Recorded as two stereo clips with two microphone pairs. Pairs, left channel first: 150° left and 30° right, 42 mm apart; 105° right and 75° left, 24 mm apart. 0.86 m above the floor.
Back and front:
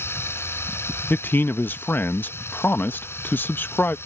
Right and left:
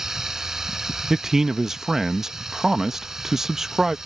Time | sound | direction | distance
0.0 | running water | 145° left | ?
1.1 | a man speaking | 145° left | ?